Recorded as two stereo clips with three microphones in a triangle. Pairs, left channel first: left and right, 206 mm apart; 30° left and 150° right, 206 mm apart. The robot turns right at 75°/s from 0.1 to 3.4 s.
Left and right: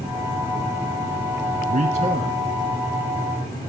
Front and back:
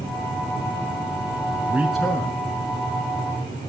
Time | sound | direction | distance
1.7 | a man speaking | 80° right | 1.5 m